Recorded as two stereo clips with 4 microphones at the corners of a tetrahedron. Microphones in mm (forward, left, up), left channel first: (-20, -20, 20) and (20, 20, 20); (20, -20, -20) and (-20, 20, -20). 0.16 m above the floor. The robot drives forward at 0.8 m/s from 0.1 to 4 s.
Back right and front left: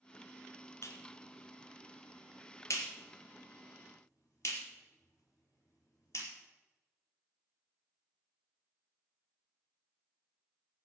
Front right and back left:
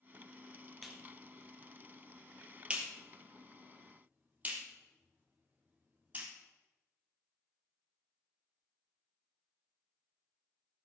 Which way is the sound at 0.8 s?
130° right.